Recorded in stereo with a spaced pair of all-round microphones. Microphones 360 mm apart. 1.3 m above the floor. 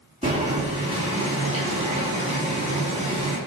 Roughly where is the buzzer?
I don't hear a buzzer.